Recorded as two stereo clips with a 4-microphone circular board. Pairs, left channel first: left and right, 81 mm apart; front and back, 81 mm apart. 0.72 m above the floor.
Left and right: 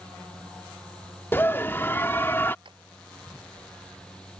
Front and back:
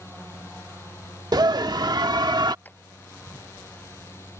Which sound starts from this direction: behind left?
A scream, at 1.3 s.